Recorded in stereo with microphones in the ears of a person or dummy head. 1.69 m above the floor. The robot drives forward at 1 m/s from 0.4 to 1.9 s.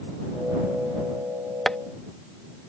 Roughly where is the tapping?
Centre.